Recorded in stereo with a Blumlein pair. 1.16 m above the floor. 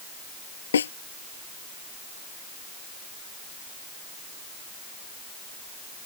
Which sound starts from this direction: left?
A snare drum, at 0.7 s.